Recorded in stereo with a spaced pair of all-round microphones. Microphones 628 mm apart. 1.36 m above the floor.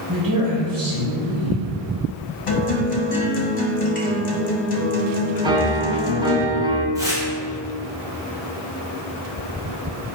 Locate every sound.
0.1 s a man speaking: 30° right (ahead or behind), 1.2 m
2.5 s a guitar: 55° left (ahead or behind), 0.9 m
5.4 s a piano: 10° right (ahead or behind), 0.6 m
7.0 s tearing paper: 5° right (ahead or behind), 1.3 m